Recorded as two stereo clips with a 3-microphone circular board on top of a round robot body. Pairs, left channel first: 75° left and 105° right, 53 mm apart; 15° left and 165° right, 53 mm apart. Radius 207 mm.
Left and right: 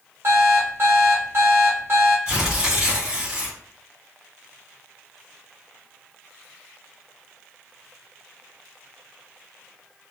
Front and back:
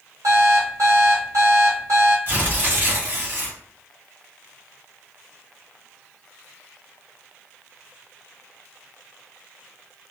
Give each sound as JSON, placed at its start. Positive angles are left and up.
{"t": 0.2, "sound": "an alarm clock", "azimuth_deg": -145, "distance_m": 1.1}
{"t": 2.3, "sound": "tearing paper", "azimuth_deg": -170, "distance_m": 1.8}